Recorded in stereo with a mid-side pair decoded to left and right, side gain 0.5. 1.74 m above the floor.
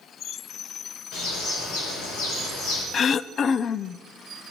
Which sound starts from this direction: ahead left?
Throat clearing, at 2.9 s.